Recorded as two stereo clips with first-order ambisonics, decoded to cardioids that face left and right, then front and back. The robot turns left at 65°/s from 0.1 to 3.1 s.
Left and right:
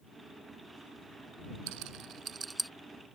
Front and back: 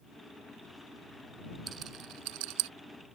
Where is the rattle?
115° right; by 2.7 s straight behind.